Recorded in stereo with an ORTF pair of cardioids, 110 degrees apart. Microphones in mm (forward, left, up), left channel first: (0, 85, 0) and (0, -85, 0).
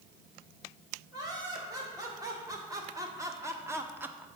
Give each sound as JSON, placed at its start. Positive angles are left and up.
{"t": 1.1, "sound": "laughter", "azimuth_deg": -20, "distance_m": 3.0}